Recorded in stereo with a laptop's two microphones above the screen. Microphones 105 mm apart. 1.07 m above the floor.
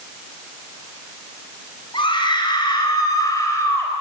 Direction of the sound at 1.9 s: 50° left (ahead or behind).